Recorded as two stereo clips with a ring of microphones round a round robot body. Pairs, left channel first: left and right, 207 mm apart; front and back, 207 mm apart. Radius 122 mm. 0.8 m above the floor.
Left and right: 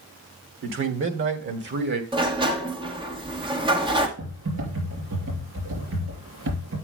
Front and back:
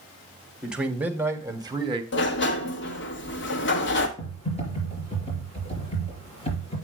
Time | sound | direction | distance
0.6 | a man speaking | 95° right | 2.0 m
2.1 | a sliding door | 25° right | 1.5 m
4.2 | typing on a keyboard | 65° right | 5 m